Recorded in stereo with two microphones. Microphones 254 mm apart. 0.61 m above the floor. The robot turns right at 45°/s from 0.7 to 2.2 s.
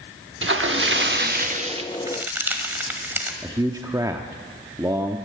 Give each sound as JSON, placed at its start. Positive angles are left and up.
{"t": 0.4, "sound": "a splash", "azimuth_deg": -80, "distance_m": 1.0}
{"t": 1.9, "sound": "a crack", "side_deg": -20, "distance_m": 1.5}
{"t": 3.4, "sound": "a man speaking", "side_deg": -15, "distance_m": 0.8}